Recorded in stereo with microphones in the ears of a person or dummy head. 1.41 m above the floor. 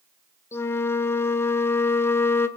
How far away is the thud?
I don't hear a thud.